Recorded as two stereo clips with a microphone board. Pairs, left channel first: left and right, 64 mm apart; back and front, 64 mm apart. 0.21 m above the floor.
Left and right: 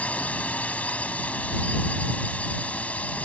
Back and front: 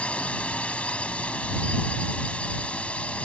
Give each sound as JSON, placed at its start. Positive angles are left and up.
{"t": 0.0, "sound": "a drone", "azimuth_deg": 130}